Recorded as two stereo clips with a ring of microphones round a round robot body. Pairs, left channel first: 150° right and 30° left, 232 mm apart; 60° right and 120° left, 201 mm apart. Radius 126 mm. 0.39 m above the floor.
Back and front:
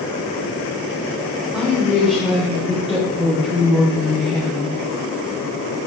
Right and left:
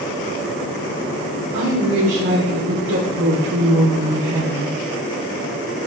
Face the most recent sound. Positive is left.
turn(degrees=115)